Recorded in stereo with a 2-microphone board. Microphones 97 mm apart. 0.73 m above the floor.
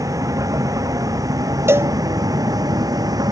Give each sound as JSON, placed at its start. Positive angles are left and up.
{"t": 0.0, "sound": "a vehicle", "side_deg": -35}
{"t": 1.7, "sound": "a cowbell", "side_deg": -25}